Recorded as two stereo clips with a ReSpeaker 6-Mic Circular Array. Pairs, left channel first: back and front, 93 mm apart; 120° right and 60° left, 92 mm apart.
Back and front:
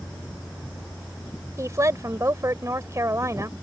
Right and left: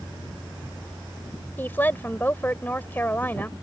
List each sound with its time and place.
1.6 s a woman speaking: 50° right